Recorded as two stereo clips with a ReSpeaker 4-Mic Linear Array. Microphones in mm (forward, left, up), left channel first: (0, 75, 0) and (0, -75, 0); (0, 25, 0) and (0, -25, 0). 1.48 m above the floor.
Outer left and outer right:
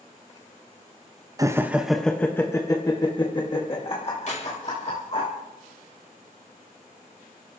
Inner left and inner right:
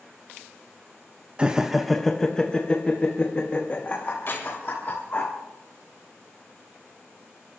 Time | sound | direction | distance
1.4 | laughter | 25° right (ahead or behind) | 0.7 m
4.3 | keys jangling | 55° left (ahead or behind) | 4 m